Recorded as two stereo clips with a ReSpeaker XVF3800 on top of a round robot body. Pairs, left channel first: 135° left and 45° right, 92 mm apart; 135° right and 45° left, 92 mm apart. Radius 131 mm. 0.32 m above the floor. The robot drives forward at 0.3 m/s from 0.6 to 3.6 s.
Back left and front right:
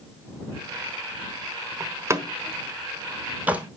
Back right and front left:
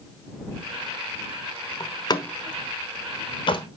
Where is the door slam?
100° right, 1.5 m; by 3.7 s 120° right, 1.7 m.